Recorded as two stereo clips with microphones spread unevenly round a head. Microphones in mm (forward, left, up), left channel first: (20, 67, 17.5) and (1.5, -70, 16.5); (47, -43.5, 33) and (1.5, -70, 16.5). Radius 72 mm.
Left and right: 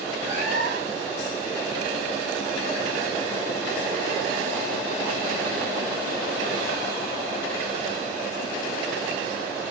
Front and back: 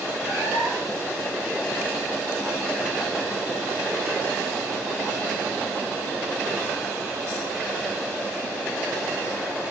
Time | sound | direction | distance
0.2 | a cat meowing | 90° left | 4.5 m